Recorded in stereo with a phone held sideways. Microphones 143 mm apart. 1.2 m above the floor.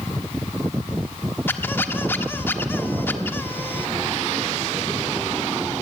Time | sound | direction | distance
1.5 | a squeak | 15° left (ahead or behind) | 1.3 m